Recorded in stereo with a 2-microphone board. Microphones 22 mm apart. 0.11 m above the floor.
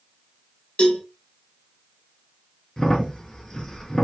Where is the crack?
30° left (ahead or behind), 0.9 m.